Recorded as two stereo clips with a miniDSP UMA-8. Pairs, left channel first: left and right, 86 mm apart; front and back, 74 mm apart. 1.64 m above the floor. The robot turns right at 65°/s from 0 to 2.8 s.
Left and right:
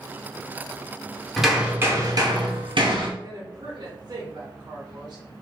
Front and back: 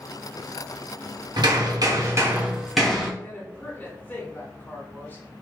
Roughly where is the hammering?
Behind.